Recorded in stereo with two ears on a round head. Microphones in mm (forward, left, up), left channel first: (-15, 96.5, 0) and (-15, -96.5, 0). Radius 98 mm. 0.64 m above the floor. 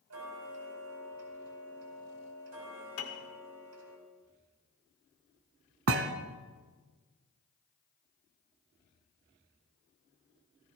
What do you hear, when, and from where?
0.1 s ticking: 80° right, 4.5 m
3.0 s a piano: 65° left (ahead or behind), 2.0 m
5.9 s a thud: 65° right (ahead or behind), 1.0 m